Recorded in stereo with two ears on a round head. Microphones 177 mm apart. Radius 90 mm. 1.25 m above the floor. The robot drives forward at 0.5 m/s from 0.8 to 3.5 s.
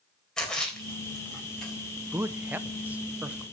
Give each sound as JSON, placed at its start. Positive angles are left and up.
{"t": 0.4, "sound": "a splash", "side_deg": 5, "distance_m": 3.5}
{"t": 2.1, "sound": "a man speaking", "side_deg": -10, "distance_m": 0.7}